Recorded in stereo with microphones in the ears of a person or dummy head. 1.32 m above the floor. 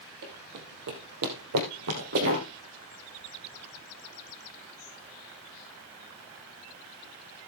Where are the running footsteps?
55° right (ahead or behind), 3 m; by 2.5 s 50° right (ahead or behind), 2 m.